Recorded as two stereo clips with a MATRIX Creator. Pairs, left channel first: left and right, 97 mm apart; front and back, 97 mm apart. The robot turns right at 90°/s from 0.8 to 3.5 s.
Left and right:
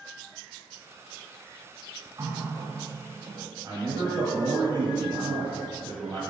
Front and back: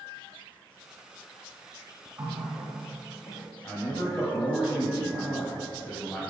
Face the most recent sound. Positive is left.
turn(degrees=-80)